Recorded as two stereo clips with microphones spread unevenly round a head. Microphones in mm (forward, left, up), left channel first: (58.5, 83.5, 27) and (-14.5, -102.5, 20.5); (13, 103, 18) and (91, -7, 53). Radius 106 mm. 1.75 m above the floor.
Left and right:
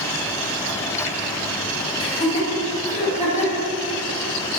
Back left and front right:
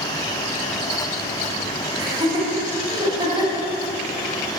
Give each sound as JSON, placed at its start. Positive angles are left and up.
{"t": 2.0, "sound": "laughter", "azimuth_deg": 5, "distance_m": 3.5}